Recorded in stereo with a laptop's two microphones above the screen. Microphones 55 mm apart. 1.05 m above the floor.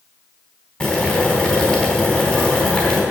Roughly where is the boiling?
Left.